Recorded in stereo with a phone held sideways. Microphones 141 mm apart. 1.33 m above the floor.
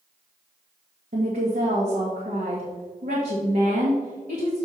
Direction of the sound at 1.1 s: 85° right.